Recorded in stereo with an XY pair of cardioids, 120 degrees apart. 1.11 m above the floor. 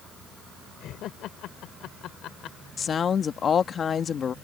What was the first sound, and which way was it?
Laughter, 70° left.